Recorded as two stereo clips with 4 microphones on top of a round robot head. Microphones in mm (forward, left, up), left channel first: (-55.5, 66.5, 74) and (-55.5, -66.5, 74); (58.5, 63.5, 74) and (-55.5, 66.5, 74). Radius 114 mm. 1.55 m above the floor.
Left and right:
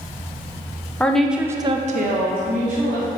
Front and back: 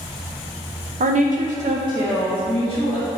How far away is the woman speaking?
About 0.9 m.